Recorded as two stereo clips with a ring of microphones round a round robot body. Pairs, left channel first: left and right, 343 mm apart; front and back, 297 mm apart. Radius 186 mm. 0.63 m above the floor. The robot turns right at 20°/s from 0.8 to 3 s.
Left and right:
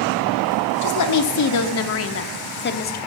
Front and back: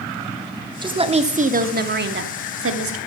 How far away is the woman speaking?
About 1.3 m.